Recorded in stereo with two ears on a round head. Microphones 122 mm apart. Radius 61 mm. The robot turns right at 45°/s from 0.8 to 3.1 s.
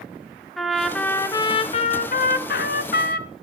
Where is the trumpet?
Straight ahead, 1.0 m; by 3.3 s 105° left, 1.0 m.